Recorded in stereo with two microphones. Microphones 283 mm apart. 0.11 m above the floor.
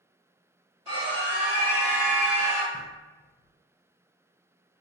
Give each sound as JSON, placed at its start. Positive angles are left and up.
{"t": 0.8, "sound": "a scream", "side_deg": -15, "distance_m": 1.8}
{"t": 2.7, "sound": "knocking", "side_deg": 40, "distance_m": 1.6}